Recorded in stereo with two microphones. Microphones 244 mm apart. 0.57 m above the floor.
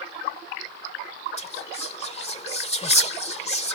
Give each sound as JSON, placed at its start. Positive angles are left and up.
{"t": 1.4, "sound": "whispering", "side_deg": 25}